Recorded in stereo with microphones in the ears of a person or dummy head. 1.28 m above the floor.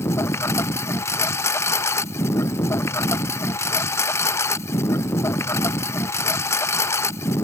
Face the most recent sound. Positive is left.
turn(degrees=10)  # may be behind; listen again after turning